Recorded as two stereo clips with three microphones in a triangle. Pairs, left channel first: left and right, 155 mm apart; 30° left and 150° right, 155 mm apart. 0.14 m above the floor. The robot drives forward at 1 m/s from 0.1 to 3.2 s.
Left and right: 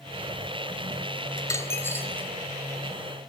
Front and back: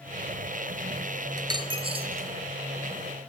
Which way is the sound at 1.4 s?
155° left.